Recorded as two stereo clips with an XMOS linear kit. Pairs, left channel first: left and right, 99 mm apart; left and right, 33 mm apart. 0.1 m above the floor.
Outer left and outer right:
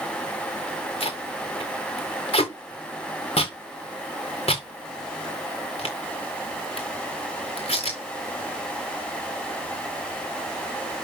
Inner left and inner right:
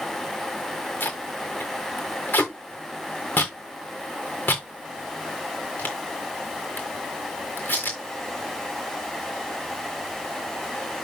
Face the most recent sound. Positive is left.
turn(degrees=85)